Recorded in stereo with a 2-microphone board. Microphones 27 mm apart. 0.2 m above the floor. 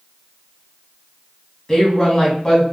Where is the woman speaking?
35° left (ahead or behind), 1.1 m.